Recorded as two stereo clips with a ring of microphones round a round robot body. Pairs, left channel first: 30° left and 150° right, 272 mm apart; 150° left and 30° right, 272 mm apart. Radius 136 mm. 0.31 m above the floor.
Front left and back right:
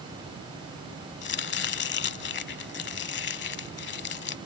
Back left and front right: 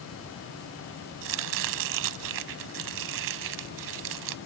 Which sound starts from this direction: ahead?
Chopping, at 1.2 s.